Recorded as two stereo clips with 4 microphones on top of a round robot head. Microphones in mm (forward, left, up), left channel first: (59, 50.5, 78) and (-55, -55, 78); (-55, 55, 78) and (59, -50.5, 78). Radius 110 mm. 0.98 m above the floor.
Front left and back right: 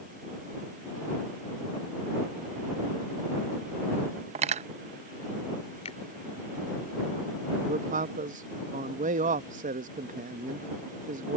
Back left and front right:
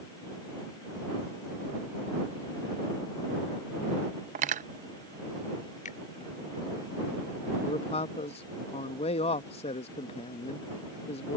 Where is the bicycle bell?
I don't hear a bicycle bell.